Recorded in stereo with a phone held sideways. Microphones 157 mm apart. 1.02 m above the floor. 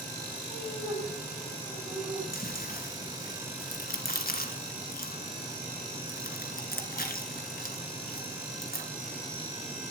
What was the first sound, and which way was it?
Laughter, 20° right (ahead or behind).